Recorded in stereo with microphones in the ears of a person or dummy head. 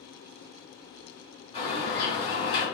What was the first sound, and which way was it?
A bird, 25° left (ahead or behind).